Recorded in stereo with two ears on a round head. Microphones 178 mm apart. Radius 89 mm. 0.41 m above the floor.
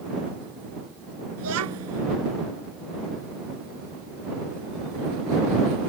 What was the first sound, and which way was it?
A child speaking, 85° right.